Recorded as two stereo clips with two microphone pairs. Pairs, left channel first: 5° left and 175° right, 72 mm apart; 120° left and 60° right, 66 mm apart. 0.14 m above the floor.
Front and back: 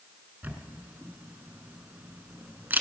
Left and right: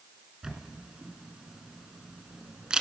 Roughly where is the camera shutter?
Behind right.